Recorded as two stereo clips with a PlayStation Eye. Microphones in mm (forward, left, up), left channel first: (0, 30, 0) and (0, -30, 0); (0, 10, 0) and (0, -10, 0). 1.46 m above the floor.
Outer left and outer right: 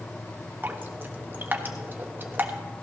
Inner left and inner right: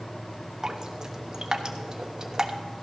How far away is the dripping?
About 1.0 m.